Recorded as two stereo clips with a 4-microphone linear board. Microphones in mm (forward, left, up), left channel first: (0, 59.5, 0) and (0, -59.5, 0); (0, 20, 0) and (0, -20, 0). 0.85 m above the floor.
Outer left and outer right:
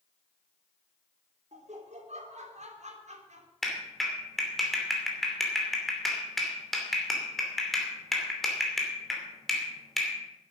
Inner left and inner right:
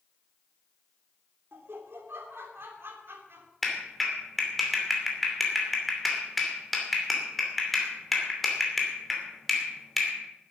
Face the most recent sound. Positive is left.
turn(degrees=0)  # may be behind; listen again after turning